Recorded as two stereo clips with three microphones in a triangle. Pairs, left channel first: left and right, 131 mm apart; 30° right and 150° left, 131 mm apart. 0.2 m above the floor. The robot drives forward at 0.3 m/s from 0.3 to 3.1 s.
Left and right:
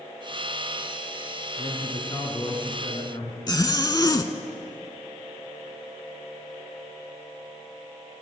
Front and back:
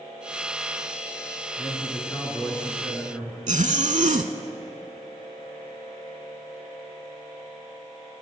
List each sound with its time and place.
1.6 s a man speaking: 40° left, 2.5 m; by 3.4 s 50° left, 2 m
3.5 s a zipper: 145° left, 0.5 m